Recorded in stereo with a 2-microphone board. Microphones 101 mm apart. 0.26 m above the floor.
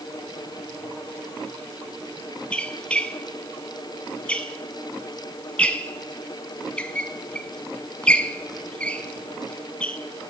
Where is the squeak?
10° left (ahead or behind), 0.7 m.